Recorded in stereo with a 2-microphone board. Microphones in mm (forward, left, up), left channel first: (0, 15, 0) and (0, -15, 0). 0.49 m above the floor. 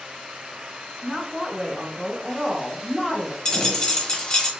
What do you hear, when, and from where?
1.0 s a woman speaking: 10° right (ahead or behind), 0.9 m
3.5 s a dropped coin: 30° left (ahead or behind), 1.1 m